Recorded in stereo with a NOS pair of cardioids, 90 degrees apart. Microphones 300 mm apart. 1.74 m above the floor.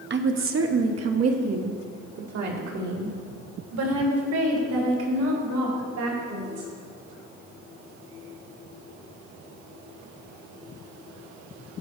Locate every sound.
0.1 s a woman speaking: 35° right, 1.1 m; by 6.7 s 75° right, 5.5 m